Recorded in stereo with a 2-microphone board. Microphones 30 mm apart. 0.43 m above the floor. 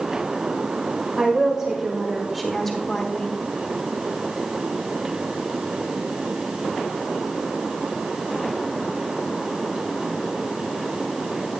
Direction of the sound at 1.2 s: 20° right (ahead or behind).